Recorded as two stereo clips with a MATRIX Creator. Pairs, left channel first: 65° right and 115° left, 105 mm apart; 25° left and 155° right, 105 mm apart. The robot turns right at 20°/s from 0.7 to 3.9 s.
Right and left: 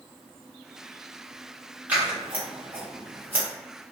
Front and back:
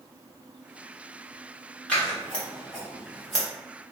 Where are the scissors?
75° left, 1.2 m; by 3.5 s 105° left, 1.2 m.